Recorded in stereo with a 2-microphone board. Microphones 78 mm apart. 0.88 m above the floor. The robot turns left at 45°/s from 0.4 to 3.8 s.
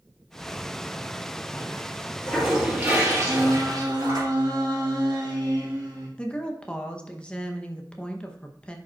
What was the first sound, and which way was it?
A toilet flushing, 80° left.